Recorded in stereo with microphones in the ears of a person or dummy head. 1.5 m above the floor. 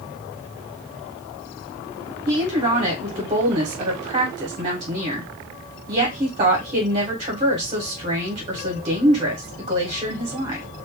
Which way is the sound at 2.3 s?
30° right (ahead or behind).